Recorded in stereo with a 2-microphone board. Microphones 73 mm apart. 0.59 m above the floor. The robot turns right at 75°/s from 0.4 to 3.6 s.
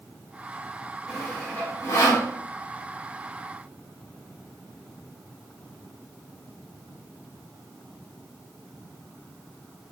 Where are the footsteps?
I don't hear footsteps.